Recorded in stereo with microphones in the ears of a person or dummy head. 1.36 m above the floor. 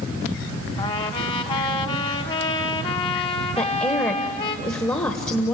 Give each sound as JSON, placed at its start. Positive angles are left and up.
{"t": 0.8, "sound": "a trumpet", "side_deg": 25, "distance_m": 1.2}
{"t": 3.6, "sound": "a woman speaking", "side_deg": 15, "distance_m": 1.3}